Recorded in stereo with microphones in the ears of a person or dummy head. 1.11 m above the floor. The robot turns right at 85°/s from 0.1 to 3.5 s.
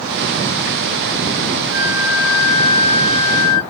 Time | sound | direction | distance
1.7 | a flute | 65° right | 1.5 m